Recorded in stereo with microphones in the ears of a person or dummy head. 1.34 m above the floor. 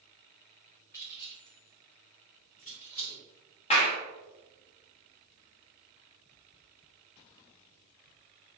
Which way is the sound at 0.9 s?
15° left (ahead or behind).